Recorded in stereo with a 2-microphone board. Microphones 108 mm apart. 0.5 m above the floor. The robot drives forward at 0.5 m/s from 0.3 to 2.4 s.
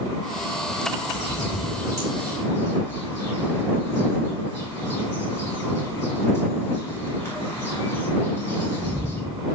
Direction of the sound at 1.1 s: 40° left (ahead or behind).